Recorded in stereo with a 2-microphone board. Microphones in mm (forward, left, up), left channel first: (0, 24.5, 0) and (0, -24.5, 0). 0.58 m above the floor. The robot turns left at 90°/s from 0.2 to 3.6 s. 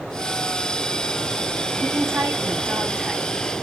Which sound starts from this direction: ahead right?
A woman speaking, at 1.8 s.